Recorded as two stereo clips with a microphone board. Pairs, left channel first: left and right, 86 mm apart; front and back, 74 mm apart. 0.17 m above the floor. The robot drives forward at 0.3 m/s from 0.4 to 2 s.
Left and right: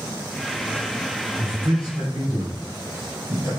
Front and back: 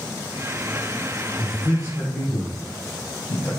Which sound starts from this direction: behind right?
A man speaking, at 1.4 s.